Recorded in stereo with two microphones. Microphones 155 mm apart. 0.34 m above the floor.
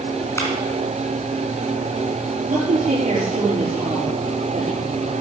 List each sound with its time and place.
0.4 s a clap: 20° left (ahead or behind), 3.5 m
2.5 s a woman speaking: 50° right (ahead or behind), 6 m